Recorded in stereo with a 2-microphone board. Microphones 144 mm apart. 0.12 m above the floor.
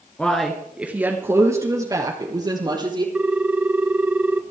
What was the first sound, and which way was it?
A man speaking, 10° left (ahead or behind).